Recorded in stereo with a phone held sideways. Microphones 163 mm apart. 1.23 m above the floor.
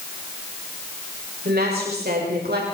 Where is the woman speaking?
75° right (ahead or behind), 6.5 m; by 2.6 s 80° right, 5 m.